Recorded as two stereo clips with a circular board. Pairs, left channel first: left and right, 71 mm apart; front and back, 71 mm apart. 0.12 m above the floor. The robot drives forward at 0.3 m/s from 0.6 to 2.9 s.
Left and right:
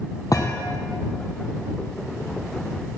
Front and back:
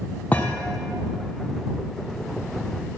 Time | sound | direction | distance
0.3 | a thud | 65° left | 1.7 m